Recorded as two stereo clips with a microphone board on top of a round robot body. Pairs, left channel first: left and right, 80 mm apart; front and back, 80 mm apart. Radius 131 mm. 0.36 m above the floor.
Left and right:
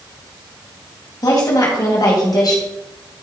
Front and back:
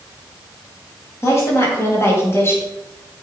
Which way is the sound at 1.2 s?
55° left.